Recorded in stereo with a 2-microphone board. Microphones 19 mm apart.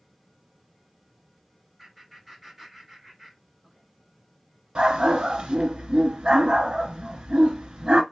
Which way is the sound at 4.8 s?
60° right (ahead or behind).